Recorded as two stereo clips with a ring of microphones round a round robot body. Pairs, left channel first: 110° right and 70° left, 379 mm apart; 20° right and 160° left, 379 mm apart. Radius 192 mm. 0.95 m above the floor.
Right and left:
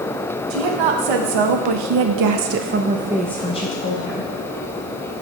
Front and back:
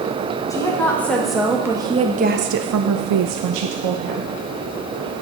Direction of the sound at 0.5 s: 60° left.